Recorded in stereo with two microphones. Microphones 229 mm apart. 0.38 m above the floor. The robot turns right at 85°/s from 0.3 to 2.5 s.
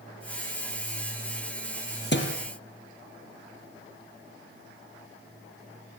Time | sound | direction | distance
2.1 | a thud | 45° left (ahead or behind) | 3.5 m